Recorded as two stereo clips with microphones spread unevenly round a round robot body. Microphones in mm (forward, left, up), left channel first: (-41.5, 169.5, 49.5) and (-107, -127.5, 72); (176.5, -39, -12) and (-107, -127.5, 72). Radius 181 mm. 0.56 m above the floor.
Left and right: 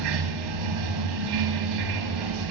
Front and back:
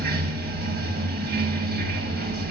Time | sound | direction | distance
0.0 | running water | 105° right | 1.3 m